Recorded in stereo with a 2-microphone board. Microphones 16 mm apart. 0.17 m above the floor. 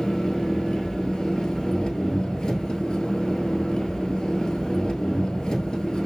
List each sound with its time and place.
0.0 s an engine running: 75° left (ahead or behind), 1.0 m